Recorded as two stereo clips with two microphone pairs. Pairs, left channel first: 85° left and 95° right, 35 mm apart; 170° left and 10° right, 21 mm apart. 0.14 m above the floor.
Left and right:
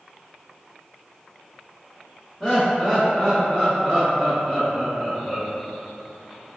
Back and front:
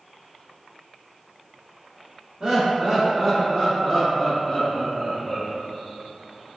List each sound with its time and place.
2.4 s laughter: 5° left, 1.8 m; by 5.5 s 135° right, 1.7 m